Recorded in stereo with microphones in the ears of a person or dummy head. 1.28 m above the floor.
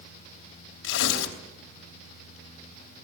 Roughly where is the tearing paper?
Left.